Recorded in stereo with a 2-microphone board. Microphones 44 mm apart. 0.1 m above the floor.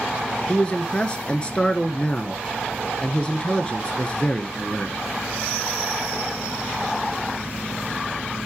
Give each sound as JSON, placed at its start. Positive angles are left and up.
{"t": 0.5, "sound": "a man speaking", "side_deg": 20, "distance_m": 1.2}